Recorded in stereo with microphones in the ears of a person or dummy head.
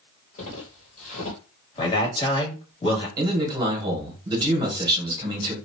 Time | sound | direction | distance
0.4 | footsteps | 35° left (ahead or behind) | 1.8 m
1.8 | a man speaking | 25° left (ahead or behind) | 1.6 m
3.2 | a man speaking | 20° right (ahead or behind) | 1.3 m